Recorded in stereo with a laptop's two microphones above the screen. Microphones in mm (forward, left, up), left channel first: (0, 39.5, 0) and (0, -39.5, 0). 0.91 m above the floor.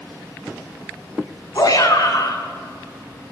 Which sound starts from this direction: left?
A shout, at 1.6 s.